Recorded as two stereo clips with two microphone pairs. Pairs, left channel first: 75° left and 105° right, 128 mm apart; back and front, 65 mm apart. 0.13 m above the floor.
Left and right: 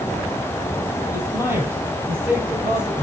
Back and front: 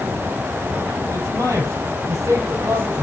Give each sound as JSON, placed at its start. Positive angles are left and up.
{"t": 1.1, "sound": "a man speaking", "azimuth_deg": -35, "distance_m": 3.5}